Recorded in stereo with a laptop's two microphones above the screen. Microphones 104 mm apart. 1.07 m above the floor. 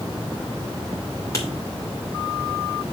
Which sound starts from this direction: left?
Writing, at 1.3 s.